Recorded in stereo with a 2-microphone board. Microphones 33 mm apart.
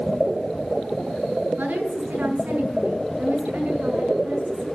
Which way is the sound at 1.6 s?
65° right (ahead or behind).